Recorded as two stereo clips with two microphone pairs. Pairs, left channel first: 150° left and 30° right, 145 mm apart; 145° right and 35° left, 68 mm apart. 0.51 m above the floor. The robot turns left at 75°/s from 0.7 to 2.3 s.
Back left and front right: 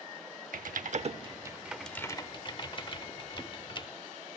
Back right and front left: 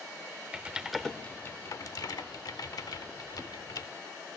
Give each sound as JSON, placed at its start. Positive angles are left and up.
{"t": 0.5, "sound": "typing on a keyboard", "azimuth_deg": -40, "distance_m": 0.7}